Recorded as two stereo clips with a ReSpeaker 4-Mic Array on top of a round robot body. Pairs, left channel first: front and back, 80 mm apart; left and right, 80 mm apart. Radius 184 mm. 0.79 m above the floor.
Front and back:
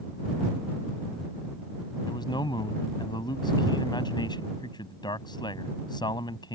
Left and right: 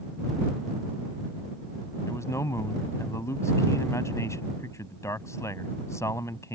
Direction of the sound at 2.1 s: 35° left.